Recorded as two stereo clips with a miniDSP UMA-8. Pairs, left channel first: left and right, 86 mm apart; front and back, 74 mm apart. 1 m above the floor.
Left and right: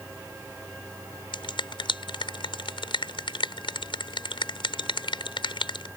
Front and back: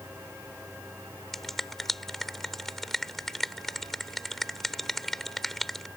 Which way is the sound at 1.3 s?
85° left.